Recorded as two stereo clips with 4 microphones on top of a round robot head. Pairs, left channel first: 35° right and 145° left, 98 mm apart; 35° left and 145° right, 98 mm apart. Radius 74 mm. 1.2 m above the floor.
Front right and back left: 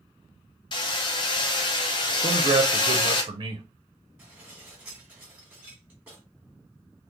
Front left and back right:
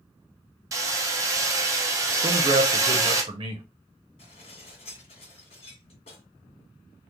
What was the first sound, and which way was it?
Hammering, 85° right.